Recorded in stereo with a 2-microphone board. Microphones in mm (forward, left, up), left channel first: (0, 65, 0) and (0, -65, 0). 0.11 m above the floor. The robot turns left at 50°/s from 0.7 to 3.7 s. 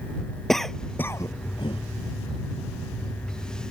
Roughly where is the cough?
Centre.